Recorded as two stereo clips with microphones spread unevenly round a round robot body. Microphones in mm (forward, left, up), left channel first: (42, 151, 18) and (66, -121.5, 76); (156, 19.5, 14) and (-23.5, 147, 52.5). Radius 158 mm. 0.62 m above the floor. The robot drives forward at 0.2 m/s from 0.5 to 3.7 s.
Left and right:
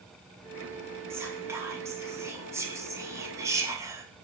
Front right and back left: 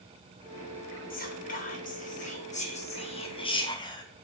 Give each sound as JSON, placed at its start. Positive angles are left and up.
{"t": 1.1, "sound": "whispering", "azimuth_deg": 0, "distance_m": 1.0}